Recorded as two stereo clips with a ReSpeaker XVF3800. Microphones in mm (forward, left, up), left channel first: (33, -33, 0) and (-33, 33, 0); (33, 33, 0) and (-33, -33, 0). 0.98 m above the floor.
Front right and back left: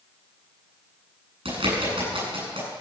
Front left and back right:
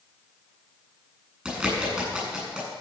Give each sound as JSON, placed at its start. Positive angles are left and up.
{"t": 1.4, "sound": "a bird", "azimuth_deg": 140, "distance_m": 8.5}